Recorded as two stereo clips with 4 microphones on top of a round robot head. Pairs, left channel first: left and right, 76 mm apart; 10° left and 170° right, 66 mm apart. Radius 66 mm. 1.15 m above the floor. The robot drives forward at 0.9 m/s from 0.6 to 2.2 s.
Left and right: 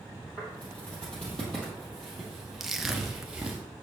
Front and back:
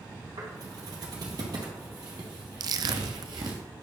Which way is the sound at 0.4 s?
165° left.